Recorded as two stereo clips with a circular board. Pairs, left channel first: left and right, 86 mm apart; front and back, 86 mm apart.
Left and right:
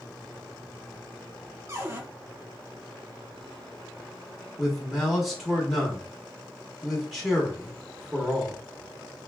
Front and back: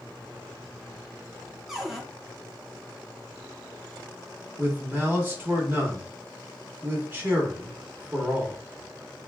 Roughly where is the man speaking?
Behind.